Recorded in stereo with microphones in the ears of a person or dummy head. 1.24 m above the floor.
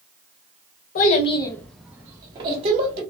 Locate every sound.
0.9 s a child speaking: 50° left (ahead or behind), 0.6 m; by 3.0 s 35° right (ahead or behind), 1.1 m